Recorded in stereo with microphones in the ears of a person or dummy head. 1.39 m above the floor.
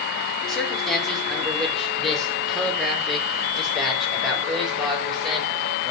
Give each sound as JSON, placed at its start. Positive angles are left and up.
{"t": 0.5, "sound": "a man speaking", "side_deg": 0, "distance_m": 4.0}